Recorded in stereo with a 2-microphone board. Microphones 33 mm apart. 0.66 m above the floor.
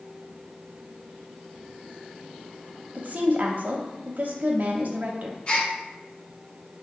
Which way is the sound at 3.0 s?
55° right (ahead or behind).